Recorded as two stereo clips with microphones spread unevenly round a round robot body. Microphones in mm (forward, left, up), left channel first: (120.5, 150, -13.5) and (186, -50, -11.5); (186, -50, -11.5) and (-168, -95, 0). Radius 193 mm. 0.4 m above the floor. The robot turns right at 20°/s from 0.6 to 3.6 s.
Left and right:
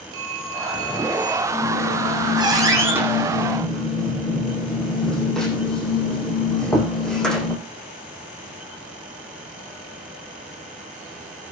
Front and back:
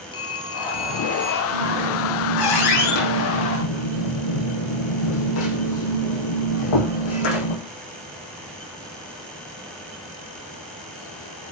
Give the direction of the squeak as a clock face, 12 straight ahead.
1 o'clock.